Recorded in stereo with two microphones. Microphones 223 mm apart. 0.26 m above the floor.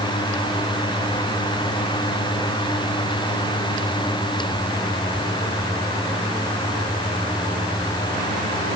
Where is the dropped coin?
I don't hear a dropped coin.